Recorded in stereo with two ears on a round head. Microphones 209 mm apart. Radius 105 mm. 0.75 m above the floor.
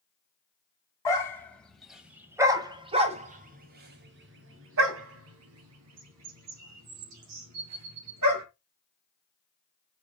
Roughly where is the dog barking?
Centre.